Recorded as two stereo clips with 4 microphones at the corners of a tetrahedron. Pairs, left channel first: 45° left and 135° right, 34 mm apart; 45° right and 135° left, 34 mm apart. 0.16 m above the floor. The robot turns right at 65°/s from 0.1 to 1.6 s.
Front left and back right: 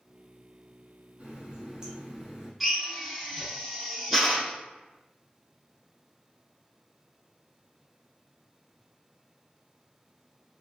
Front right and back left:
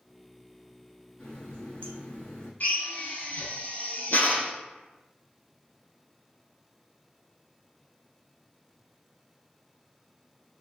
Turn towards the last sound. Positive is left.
turn(degrees=-50)